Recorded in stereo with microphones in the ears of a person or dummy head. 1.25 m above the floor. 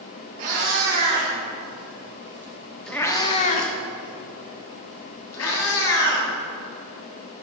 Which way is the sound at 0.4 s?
40° right (ahead or behind).